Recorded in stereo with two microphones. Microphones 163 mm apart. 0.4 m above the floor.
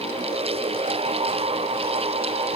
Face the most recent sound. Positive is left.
No sound to turn to.